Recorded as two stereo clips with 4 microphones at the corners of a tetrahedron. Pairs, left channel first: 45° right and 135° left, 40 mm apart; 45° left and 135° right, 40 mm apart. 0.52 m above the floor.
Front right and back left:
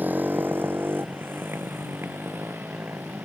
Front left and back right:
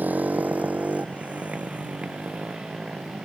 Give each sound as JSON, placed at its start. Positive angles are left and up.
{"t": 0.0, "sound": "a motorcycle", "azimuth_deg": 180}